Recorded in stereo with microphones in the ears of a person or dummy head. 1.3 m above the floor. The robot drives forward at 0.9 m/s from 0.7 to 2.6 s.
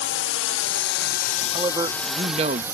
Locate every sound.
0.0 s a drone: 60° left (ahead or behind); by 2.8 s 10° right (ahead or behind)
1.5 s a man speaking: 20° right (ahead or behind); by 2.6 s 35° right (ahead or behind)